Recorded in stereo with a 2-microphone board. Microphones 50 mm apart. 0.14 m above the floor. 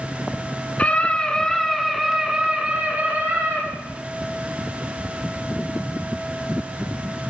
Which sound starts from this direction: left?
A scream, at 0.8 s.